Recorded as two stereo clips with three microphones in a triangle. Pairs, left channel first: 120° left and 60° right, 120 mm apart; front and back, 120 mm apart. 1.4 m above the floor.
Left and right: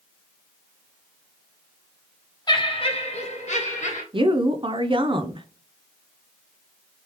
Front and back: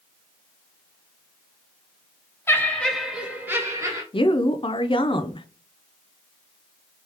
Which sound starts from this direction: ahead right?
A woman speaking, at 4.1 s.